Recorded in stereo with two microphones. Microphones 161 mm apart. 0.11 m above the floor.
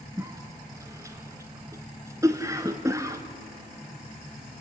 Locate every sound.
0.2 s a cough: 20° right (ahead or behind), 1.1 m